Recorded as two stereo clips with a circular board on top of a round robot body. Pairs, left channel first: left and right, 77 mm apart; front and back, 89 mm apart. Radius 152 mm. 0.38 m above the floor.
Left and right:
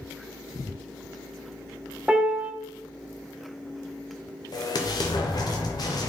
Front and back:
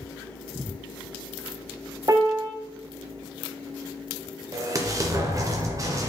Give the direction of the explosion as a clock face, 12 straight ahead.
8 o'clock.